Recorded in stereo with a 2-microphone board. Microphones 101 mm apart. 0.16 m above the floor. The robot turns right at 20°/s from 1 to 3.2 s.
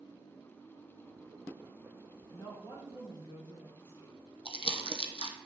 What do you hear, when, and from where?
2.3 s a woman speaking: 50° left (ahead or behind), 3 m; by 4.2 s 60° left (ahead or behind), 3 m
4.5 s crumpling: 70° left (ahead or behind), 1.0 m